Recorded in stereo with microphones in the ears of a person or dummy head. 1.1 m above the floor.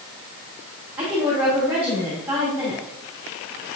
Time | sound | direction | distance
1.0 | a woman speaking | 10° right (ahead or behind) | 3 m